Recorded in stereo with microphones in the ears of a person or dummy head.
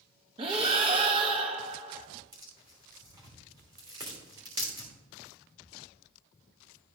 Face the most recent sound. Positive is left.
turn(degrees=-20)  # may be behind; listen again after turning